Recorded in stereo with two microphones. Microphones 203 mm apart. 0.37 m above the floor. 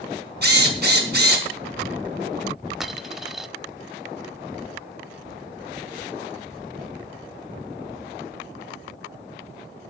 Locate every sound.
0.4 s a drill: 55° right (ahead or behind), 4 m
2.8 s a dropped coin: centre (ahead or behind), 0.8 m